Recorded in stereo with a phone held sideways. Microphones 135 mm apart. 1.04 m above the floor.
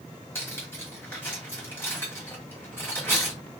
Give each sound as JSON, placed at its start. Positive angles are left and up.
{"t": 0.3, "sound": "cutlery clinking", "side_deg": 15, "distance_m": 1.6}